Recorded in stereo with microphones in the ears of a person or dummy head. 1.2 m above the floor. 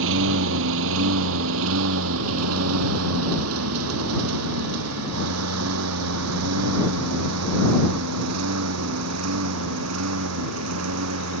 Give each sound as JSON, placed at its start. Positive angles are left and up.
{"t": 0.0, "sound": "a lawn mower", "side_deg": -65}